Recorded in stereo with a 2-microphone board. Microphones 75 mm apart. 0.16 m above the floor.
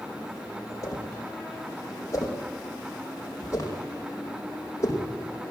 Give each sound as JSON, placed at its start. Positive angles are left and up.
{"t": 0.8, "sound": "a whoosh", "side_deg": 40, "distance_m": 6.0}